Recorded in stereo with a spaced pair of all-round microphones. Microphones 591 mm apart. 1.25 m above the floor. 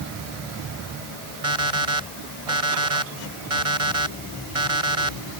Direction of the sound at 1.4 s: 60° right (ahead or behind).